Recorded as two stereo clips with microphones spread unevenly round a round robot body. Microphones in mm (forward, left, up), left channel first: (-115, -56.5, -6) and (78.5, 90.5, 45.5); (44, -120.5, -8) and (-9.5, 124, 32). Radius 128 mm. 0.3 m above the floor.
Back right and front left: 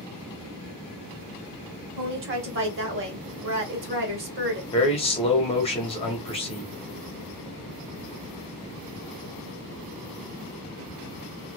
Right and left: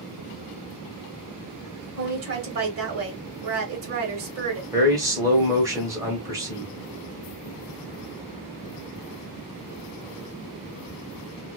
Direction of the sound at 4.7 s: 175° right.